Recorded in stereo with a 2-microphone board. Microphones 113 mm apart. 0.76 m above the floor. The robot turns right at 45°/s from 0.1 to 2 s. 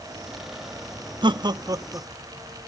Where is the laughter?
45° right (ahead or behind), 0.6 m; by 2.1 s 25° right (ahead or behind), 0.6 m.